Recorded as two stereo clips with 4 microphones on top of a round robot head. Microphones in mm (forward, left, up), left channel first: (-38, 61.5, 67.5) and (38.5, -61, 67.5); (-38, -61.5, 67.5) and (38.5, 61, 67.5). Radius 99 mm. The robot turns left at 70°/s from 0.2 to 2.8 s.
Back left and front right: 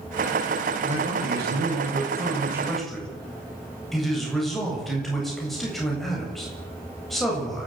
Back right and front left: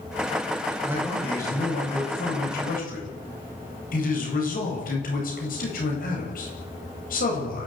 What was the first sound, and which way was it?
A man speaking, 10° right.